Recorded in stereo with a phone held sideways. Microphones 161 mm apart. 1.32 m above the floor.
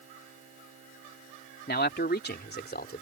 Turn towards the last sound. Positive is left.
turn(degrees=85)